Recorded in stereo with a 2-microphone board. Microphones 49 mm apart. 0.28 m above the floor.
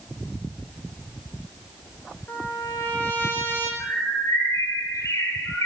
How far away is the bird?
About 7.5 m.